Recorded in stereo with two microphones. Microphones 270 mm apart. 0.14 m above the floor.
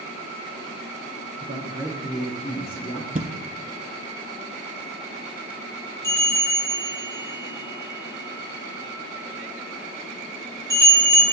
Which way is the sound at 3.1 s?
30° right (ahead or behind).